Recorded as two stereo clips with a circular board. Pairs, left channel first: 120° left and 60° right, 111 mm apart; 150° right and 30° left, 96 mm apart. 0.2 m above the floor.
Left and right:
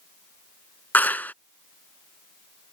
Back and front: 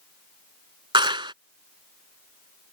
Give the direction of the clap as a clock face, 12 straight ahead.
10 o'clock.